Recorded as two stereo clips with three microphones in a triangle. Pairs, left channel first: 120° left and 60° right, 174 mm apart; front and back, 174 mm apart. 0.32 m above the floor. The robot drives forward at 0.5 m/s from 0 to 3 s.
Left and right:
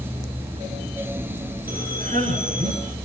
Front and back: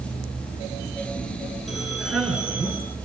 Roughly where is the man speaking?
Right.